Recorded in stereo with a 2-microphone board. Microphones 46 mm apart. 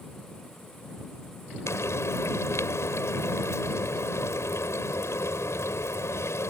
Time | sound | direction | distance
1.7 | frying | 75° left (ahead or behind) | ?